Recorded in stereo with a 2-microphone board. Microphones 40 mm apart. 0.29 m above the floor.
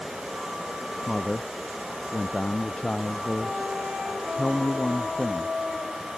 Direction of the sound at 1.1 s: 30° left (ahead or behind).